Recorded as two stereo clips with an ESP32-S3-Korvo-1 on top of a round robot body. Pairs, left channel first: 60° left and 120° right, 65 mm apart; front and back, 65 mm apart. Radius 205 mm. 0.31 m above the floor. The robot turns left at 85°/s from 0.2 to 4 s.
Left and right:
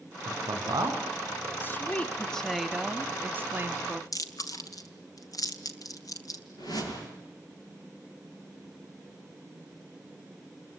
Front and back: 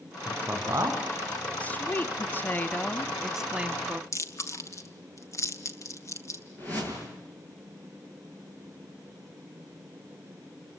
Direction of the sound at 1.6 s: 50° left.